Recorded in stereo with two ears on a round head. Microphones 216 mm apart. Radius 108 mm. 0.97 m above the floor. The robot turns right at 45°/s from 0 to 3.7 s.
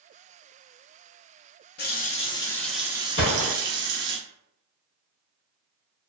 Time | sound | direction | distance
1.8 | a running tap | 140° left | 0.6 m
3.2 | a gunshot | 45° left (ahead or behind) | 0.9 m